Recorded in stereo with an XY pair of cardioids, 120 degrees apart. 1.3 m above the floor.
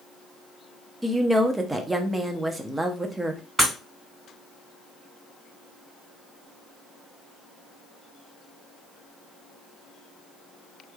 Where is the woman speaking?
15° right, 0.7 m.